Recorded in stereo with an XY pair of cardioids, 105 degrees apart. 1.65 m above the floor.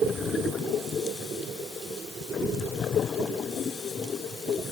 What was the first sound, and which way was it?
Only background noise.